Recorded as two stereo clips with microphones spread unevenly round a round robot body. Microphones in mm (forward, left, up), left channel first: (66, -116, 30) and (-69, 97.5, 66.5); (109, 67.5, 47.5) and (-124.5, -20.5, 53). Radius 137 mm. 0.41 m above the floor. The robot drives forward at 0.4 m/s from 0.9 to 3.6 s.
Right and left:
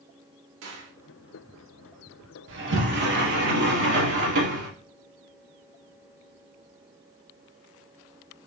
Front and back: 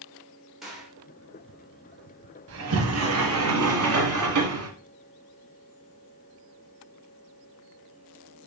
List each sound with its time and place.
0.6 s a gunshot: 110° left, 1.7 m; by 0.9 s 115° left, 1.7 m
2.5 s a sliding door: 170° left, 1.0 m